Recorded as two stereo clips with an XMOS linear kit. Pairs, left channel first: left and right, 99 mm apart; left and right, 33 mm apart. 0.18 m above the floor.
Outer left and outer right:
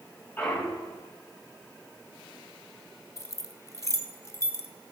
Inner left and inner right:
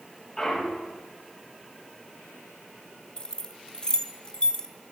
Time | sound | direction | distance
0.4 | a clunk | 20° left (ahead or behind) | 4 m
3.2 | keys jangling | 30° left (ahead or behind) | 0.9 m